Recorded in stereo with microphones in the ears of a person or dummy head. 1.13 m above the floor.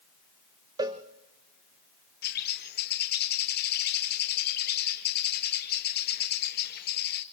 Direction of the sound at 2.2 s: 55° left (ahead or behind).